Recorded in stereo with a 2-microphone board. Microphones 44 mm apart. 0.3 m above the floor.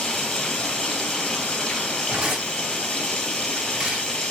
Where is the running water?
15° left (ahead or behind), 1.9 m.